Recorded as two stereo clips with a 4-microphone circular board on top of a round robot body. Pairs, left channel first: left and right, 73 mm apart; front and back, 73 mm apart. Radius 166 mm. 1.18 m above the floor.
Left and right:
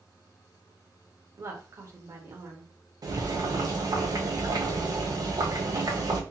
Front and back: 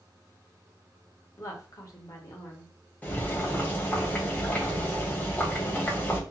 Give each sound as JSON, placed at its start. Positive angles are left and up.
{"t": 1.4, "sound": "a woman speaking", "azimuth_deg": -45, "distance_m": 0.9}
{"t": 3.0, "sound": "boiling", "azimuth_deg": -65, "distance_m": 0.8}